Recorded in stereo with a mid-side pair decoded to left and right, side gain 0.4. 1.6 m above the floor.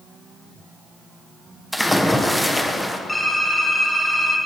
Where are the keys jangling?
I don't hear keys jangling.